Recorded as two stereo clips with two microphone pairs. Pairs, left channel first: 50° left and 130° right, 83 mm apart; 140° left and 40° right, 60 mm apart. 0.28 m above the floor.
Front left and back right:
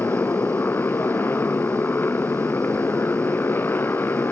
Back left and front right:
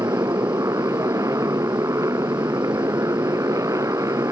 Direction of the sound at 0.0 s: 15° right.